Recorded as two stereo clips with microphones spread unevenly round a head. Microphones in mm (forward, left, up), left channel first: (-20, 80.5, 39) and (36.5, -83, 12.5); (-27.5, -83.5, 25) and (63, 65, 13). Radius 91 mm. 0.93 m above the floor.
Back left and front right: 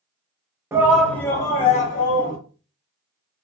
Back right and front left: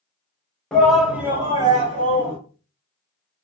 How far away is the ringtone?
I don't hear a ringtone.